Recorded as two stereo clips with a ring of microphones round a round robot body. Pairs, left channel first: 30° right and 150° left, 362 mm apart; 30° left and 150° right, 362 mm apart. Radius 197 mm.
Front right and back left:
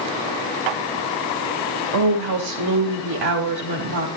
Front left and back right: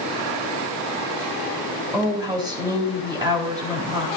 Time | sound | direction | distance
1.9 | a woman speaking | 130° left | 4.5 m